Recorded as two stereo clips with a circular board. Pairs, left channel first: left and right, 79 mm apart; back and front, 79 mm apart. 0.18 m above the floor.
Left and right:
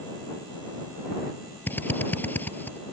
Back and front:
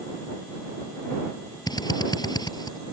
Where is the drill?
155° left.